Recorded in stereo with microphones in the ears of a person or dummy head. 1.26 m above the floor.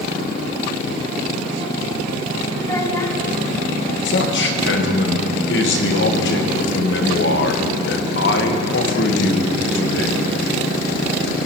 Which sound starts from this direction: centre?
A child speaking, at 2.6 s.